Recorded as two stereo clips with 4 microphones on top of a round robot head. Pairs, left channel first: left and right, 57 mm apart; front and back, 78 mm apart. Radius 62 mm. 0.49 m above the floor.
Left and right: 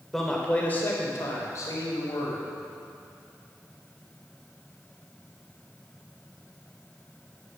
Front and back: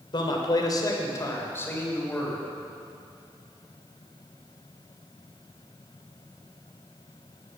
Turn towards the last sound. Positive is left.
turn(degrees=70)